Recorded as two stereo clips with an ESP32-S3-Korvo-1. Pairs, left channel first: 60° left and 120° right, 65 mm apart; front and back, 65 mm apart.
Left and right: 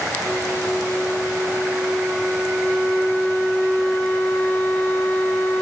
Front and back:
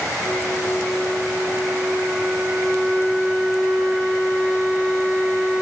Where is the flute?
120° left, 1.5 m.